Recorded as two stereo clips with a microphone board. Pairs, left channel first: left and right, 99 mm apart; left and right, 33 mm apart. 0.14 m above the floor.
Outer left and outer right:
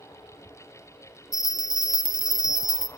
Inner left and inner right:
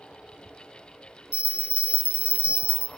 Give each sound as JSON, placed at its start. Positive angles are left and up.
{"t": 1.3, "sound": "a bell", "side_deg": -50, "distance_m": 0.8}